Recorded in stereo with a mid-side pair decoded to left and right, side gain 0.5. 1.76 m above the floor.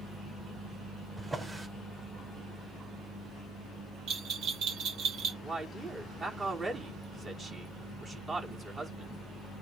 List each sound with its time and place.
1.2 s a drawer: 25° right, 5 m
4.1 s a bell: 65° right, 1.9 m
5.4 s a man speaking: 35° right, 5.5 m